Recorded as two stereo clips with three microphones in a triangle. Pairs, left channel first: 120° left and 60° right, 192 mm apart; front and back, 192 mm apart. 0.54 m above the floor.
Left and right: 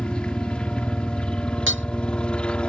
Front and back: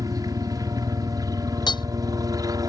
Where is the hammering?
70° right.